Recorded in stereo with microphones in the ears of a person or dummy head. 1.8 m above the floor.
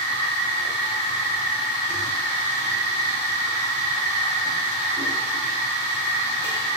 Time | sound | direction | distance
0.0 | a machine running | 30° left (ahead or behind) | 1.0 m